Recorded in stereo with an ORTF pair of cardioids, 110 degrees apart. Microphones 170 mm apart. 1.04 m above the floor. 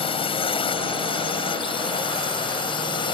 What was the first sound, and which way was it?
A drone, 30° left.